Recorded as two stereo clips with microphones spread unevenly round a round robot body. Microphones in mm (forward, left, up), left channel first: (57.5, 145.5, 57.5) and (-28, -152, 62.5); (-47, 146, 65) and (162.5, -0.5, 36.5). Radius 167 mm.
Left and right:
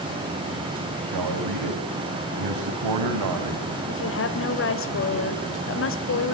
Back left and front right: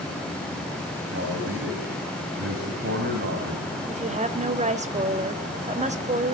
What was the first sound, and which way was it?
A man speaking, 90° right.